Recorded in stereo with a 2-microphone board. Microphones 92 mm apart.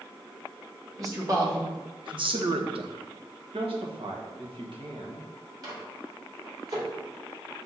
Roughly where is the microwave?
Right.